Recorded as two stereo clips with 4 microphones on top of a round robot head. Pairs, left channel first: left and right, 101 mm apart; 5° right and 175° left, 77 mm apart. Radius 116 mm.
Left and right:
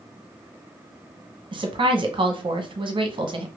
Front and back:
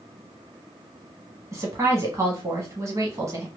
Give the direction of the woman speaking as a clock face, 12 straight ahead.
4 o'clock.